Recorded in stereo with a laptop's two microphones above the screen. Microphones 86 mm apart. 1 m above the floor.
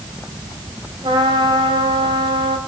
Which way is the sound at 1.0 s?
80° right.